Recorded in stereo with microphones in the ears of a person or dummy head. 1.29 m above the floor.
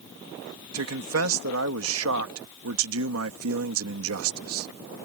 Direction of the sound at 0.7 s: 80° right.